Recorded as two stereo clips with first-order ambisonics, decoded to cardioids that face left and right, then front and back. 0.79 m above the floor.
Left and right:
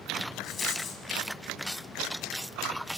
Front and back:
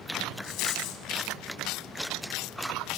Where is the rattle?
30° left, 2.5 m.